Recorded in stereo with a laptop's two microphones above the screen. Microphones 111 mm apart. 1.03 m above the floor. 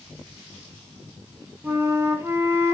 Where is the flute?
20° right (ahead or behind), 0.7 m.